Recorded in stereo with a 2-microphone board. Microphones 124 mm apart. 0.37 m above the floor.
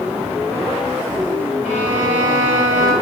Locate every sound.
1.6 s a violin: 80° left, 4.5 m